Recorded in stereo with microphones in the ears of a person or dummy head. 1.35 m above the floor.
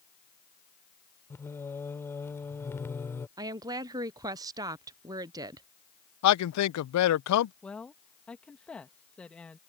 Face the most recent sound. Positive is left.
turn(degrees=5)  # may be behind; listen again after turning